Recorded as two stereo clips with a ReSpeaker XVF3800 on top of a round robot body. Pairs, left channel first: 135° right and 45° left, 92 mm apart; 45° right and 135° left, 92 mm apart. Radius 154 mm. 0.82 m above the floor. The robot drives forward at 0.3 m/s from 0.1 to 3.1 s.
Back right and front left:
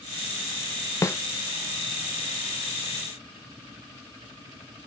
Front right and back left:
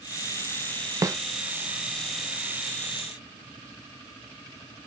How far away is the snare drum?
About 0.6 m.